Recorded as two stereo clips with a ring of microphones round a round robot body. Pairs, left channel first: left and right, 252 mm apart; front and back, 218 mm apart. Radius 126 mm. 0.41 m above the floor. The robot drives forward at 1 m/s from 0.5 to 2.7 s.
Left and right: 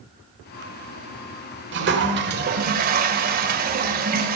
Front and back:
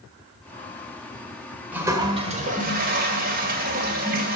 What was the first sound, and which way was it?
A toilet flushing, 100° right.